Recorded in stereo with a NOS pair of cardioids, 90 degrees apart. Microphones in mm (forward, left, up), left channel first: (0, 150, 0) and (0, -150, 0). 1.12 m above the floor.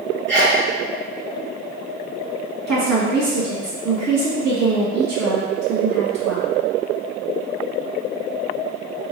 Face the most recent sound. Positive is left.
turn(degrees=-65)